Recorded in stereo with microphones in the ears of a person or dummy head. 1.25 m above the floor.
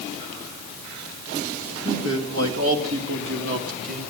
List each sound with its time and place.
1.9 s a man speaking: 75° right (ahead or behind), 2.5 m; by 4.0 s 45° right (ahead or behind), 2.5 m